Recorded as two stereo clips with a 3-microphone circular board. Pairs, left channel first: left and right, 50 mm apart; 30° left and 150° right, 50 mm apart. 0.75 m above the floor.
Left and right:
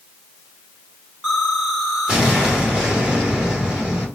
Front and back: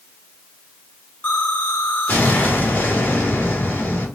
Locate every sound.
1.2 s an explosion: 25° right, 2.0 m